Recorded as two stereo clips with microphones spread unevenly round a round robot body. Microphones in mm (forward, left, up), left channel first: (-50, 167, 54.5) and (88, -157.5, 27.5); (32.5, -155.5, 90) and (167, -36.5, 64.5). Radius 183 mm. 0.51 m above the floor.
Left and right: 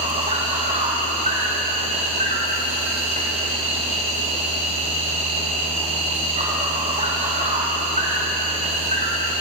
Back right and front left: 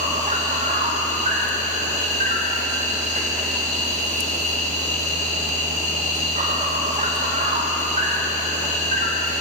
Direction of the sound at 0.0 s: Straight ahead.